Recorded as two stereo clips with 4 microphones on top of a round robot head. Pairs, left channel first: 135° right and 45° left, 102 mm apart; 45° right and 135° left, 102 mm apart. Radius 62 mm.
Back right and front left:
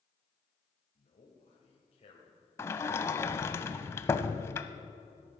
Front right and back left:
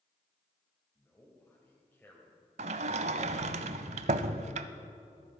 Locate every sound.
0.9 s a man speaking: 115° right, 2.0 m
2.6 s a sliding door: 155° left, 0.5 m